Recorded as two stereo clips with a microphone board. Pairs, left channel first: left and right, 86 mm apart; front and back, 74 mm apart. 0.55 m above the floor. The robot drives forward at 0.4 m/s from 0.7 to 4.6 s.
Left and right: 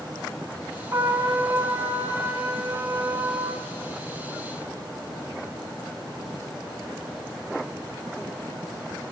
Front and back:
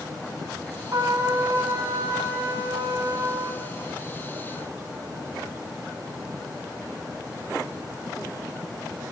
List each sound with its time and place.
0.9 s a trumpet: 145° right, 3 m; by 3.6 s 155° right, 3.5 m